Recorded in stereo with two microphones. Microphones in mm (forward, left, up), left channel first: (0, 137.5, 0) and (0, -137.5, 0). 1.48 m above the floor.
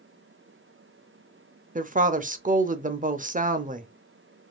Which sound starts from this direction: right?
A woman speaking, at 1.8 s.